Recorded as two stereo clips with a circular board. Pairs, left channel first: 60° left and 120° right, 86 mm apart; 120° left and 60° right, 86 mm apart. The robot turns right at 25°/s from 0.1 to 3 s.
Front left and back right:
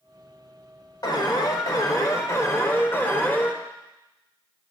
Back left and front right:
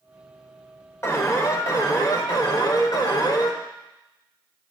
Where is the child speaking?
No child speaking in this recording.